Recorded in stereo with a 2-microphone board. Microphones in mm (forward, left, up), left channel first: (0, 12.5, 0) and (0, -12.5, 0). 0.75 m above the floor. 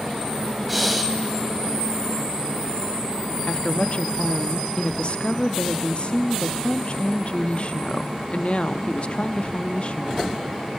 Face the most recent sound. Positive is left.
turn(degrees=55)  # may be behind; listen again after turning